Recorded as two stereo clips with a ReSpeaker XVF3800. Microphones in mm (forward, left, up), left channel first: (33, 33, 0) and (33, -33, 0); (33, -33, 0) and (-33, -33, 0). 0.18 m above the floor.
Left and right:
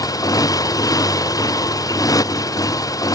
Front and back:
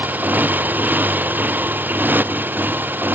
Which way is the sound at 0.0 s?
115° left.